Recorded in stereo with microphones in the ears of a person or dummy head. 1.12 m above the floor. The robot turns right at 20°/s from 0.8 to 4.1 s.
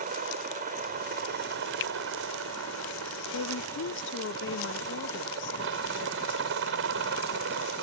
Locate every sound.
0.0 s a helicopter: 135° right; by 7.8 s 70° right
1.8 s a finger snap: 55° left (ahead or behind); by 1.9 s 50° left (ahead or behind)
3.3 s a woman speaking: 70° left (ahead or behind); by 6.8 s 60° left (ahead or behind)